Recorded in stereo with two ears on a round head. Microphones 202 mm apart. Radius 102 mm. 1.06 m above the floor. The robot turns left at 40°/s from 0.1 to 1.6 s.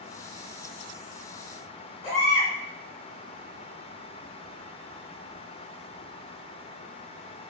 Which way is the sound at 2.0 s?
30° left (ahead or behind).